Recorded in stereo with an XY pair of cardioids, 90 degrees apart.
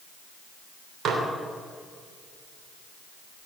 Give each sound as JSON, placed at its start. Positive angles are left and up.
{"t": 1.1, "sound": "dishes clattering", "azimuth_deg": -70, "distance_m": 3.0}